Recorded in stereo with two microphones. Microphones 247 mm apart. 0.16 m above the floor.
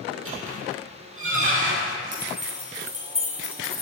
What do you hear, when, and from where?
0.1 s a squeak: 60° right (ahead or behind), 2.5 m
2.1 s keys jangling: 80° right, 3.5 m